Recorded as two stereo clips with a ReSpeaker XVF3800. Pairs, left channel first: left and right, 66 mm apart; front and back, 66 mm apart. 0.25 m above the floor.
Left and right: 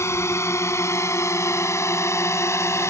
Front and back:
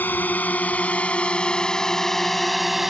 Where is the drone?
55° left; by 2.9 s 95° left.